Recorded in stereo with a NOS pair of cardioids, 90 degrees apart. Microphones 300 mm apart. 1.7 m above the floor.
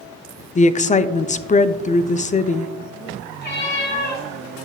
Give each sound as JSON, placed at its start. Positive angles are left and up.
{"t": 0.6, "sound": "a woman speaking", "azimuth_deg": 25, "distance_m": 0.6}
{"t": 3.4, "sound": "a cat meowing", "azimuth_deg": 35, "distance_m": 3.0}